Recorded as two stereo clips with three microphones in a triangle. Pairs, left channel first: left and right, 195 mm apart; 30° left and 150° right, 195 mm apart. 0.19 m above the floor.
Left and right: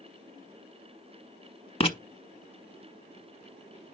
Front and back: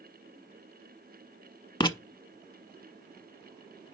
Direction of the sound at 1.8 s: 70° left.